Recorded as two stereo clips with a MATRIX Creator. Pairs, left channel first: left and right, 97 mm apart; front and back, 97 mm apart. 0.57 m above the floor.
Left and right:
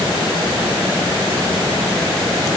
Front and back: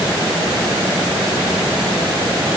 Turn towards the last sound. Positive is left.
No sound to turn to.